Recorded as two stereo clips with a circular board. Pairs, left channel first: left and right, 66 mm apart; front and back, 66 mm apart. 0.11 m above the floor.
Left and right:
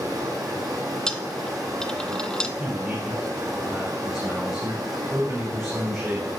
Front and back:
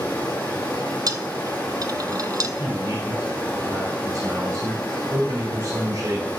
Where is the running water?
70° right, 5.5 m.